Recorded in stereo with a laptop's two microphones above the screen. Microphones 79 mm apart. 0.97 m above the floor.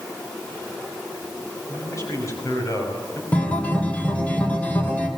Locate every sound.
1.7 s a man speaking: 40° left (ahead or behind), 6 m
3.3 s a guitar: 20° left (ahead or behind), 3 m